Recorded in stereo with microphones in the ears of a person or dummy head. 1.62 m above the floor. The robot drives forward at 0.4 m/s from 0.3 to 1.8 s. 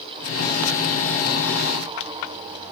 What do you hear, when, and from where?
Only background noise.